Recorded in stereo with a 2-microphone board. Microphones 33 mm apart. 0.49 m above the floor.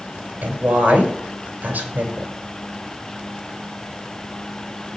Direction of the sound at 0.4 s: 65° right (ahead or behind).